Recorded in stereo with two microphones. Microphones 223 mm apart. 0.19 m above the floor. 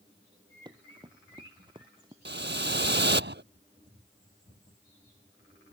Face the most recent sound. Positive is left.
turn(degrees=-55)  # may be behind; listen again after turning